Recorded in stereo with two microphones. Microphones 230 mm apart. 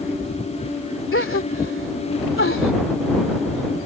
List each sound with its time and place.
1.1 s a gasp: 60° left (ahead or behind)